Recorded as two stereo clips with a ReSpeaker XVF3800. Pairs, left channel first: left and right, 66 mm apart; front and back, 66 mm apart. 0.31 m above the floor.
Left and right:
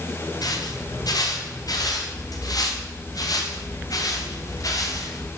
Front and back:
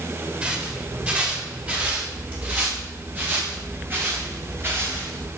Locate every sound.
0.4 s footsteps: 110° left, 8 m; by 5.3 s 125° left, 6 m